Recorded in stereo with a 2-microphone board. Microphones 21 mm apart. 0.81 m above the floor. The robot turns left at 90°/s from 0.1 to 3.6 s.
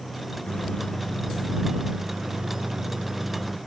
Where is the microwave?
95° left; by 3.6 s 175° left.